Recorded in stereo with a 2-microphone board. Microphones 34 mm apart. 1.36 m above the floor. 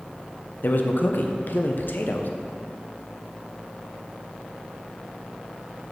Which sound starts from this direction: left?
A man speaking, at 0.6 s.